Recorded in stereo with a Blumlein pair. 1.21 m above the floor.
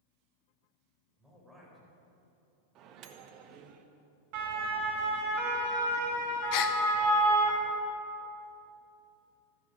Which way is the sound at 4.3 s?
45° right.